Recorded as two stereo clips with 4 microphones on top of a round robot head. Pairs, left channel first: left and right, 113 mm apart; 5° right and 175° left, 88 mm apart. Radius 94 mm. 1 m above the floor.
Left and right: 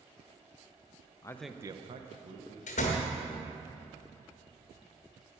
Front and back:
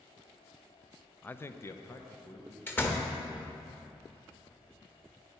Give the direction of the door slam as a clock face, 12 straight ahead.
10 o'clock.